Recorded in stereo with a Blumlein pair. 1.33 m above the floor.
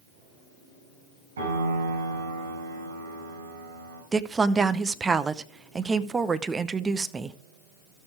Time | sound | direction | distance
1.4 | a piano | 65° right | 5 m
4.1 | a woman speaking | 15° right | 0.7 m